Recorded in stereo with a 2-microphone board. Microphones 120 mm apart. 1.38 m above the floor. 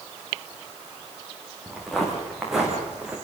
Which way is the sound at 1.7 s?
Centre (ahead or behind).